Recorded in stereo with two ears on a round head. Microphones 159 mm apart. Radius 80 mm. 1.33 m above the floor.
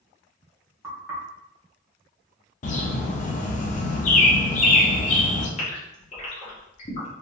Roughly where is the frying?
I don't hear frying.